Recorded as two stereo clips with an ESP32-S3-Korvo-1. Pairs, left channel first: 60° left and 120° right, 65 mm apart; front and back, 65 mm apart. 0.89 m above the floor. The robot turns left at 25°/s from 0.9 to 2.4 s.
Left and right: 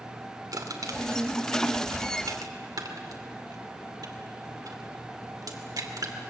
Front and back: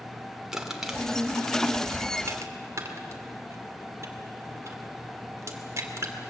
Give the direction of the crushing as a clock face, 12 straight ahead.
3 o'clock.